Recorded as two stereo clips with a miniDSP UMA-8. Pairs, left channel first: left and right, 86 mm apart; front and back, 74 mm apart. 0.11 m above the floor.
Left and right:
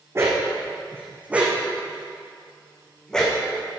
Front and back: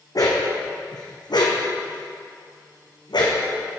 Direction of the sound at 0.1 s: 30° right.